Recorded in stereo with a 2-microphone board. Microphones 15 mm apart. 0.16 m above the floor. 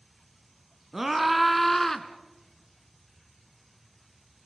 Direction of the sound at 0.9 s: 15° right (ahead or behind).